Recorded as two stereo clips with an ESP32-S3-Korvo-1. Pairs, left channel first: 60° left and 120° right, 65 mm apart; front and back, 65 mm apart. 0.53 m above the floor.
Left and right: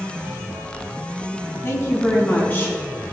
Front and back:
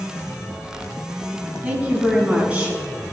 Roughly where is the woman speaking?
Left.